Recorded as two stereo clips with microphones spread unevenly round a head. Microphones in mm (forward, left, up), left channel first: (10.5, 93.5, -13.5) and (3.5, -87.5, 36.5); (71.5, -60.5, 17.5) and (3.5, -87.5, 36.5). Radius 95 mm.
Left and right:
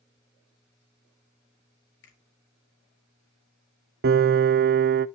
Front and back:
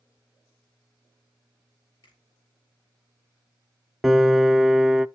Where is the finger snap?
70° left, 3.5 m.